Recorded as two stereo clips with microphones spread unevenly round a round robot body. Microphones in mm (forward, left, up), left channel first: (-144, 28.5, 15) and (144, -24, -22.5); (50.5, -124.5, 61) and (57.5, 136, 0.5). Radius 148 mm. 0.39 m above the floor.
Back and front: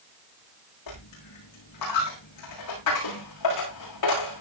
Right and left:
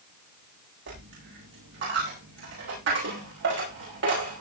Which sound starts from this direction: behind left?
A dropped coin, at 0.9 s.